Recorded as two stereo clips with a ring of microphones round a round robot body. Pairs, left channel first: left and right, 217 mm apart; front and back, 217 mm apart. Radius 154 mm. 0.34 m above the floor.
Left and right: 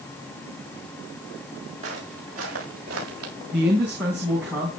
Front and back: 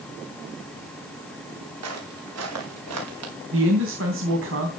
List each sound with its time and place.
1.8 s footsteps: 160° right, 6.5 m; by 3.3 s 150° right, 6.5 m
3.5 s a man speaking: 175° right, 3 m